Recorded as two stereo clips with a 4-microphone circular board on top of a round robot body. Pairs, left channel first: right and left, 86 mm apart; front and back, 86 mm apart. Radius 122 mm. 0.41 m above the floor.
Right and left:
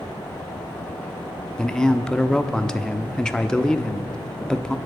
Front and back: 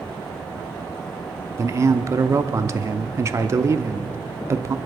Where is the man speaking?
165° right, 1.0 m.